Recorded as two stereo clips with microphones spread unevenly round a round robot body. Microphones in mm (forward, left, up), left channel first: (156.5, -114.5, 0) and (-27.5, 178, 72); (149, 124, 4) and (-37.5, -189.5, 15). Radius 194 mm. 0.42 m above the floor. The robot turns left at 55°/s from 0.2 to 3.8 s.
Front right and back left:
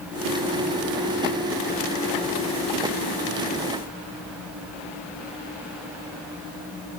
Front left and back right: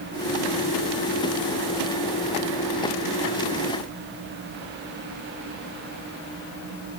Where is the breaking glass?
No breaking glass in this recording.